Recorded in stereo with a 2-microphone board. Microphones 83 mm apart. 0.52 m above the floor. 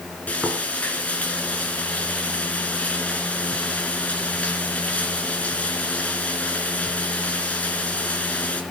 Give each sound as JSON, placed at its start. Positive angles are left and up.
{"t": 0.3, "sound": "frying", "side_deg": 15, "distance_m": 4.0}